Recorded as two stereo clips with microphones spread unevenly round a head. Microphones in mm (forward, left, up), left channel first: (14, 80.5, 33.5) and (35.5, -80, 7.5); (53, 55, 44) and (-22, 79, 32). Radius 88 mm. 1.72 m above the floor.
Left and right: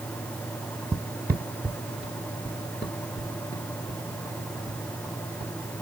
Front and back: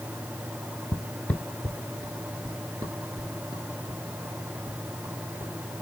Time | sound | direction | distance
0.9 | footsteps | 15° right | 1.9 m